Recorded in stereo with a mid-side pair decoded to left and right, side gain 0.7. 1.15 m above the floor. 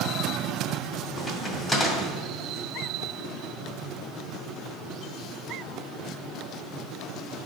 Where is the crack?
10° left, 2 m.